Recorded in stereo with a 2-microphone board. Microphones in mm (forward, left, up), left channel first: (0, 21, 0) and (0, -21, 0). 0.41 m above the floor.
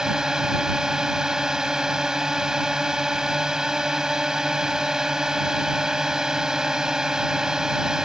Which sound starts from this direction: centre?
A drone, at 0.0 s.